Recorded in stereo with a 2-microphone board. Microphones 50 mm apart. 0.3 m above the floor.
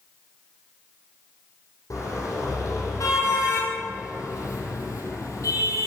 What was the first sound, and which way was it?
A car horn, 80° left.